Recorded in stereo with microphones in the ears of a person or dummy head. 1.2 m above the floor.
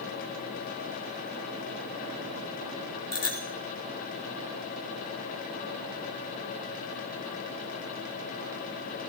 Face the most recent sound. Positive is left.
turn(degrees=20)  # may be behind; listen again after turning